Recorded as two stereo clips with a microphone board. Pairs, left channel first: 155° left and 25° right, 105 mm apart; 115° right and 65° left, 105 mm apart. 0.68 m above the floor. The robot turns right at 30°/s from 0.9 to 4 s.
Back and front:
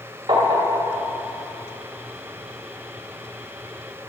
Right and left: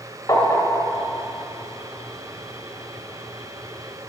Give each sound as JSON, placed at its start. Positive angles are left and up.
{"t": 0.3, "sound": "tapping", "azimuth_deg": -55, "distance_m": 2.0}